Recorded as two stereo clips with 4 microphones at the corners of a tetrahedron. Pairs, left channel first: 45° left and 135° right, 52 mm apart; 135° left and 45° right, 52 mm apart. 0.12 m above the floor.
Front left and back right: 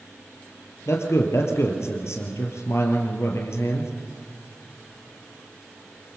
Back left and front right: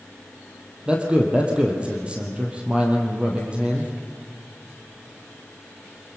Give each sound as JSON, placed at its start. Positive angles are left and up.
{"t": 0.9, "sound": "a man speaking", "azimuth_deg": 25, "distance_m": 3.0}